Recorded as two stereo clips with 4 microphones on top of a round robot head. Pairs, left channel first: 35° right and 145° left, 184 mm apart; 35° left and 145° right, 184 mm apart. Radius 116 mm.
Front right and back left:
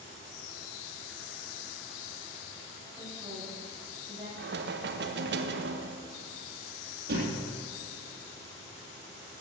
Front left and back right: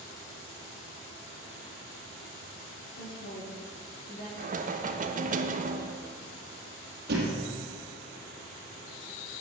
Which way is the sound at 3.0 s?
65° left.